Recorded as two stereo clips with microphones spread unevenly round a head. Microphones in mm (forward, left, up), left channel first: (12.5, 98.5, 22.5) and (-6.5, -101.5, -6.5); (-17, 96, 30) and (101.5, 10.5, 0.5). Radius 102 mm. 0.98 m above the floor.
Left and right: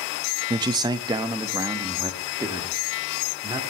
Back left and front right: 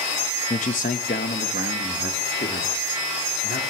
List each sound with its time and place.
0.5 s a man speaking: 160° right, 0.6 m; by 3.6 s 170° right, 2 m